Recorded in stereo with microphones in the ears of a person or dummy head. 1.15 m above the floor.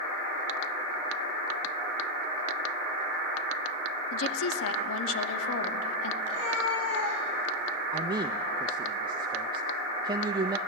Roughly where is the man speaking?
Right.